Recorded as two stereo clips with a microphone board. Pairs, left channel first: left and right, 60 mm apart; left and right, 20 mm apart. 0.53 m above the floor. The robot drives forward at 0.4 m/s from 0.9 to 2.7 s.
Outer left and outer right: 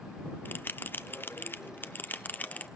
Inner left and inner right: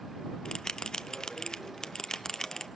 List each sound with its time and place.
0.5 s a bell: 35° left (ahead or behind), 0.7 m; by 2.7 s 30° left (ahead or behind), 0.9 m